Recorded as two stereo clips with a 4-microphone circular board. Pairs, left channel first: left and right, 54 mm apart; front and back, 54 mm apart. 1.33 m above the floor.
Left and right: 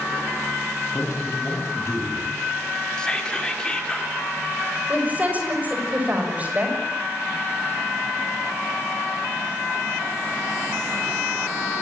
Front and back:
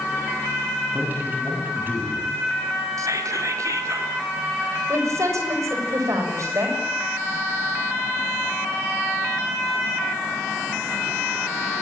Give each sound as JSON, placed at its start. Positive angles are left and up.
{"t": 0.9, "sound": "a man speaking", "azimuth_deg": 125, "distance_m": 8.0}
{"t": 3.0, "sound": "whispering", "azimuth_deg": 165, "distance_m": 3.5}
{"t": 4.9, "sound": "a woman speaking", "azimuth_deg": -155, "distance_m": 7.0}